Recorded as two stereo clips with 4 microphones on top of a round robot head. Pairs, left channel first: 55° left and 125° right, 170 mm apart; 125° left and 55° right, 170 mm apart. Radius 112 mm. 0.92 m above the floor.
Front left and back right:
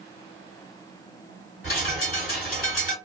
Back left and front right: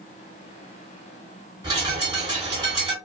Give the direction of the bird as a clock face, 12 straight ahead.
11 o'clock.